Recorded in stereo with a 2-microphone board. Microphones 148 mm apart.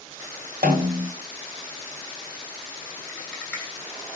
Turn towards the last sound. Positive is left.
turn(degrees=10)  # may be behind; listen again after turning